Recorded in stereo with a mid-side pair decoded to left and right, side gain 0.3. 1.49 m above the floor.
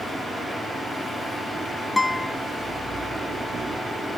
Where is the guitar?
20° left, 1.0 m.